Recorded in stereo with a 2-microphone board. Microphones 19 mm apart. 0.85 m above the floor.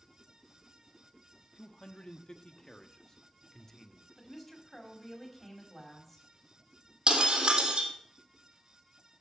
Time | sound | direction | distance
1.6 | a man speaking | 60° left (ahead or behind) | 1.3 m
4.2 | a woman speaking | 15° left (ahead or behind) | 5 m
7.1 | breaking glass | 60° right (ahead or behind) | 3 m